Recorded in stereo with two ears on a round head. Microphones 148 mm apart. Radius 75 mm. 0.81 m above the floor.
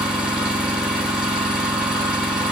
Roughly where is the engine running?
Centre.